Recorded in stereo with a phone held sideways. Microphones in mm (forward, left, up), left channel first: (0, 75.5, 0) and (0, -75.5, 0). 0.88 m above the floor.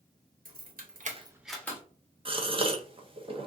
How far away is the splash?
No splash in this recording.